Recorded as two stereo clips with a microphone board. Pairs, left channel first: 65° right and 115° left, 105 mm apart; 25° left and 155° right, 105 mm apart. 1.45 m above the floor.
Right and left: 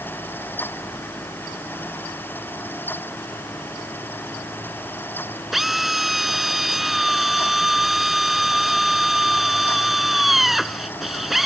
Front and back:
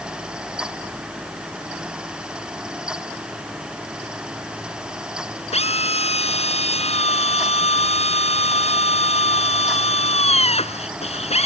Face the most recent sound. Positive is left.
turn(degrees=25)